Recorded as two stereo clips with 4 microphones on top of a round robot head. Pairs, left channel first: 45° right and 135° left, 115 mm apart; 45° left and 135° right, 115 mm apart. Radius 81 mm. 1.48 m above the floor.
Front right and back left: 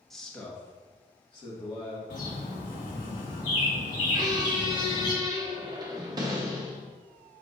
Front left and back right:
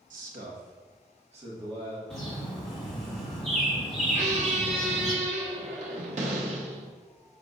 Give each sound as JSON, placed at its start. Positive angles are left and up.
{"t": 0.1, "sound": "a man speaking", "azimuth_deg": -130, "distance_m": 1.4}
{"t": 2.1, "sound": "a bird", "azimuth_deg": -40, "distance_m": 2.5}
{"t": 4.1, "sound": "a squeak", "azimuth_deg": -165, "distance_m": 0.8}